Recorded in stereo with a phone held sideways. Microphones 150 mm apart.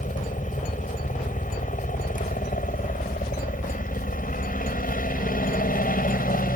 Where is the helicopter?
60° left (ahead or behind); by 6.6 s 70° left (ahead or behind).